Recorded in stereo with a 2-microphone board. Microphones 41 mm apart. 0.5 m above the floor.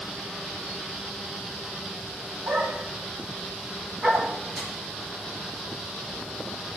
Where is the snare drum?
15° right (ahead or behind), 4.5 m.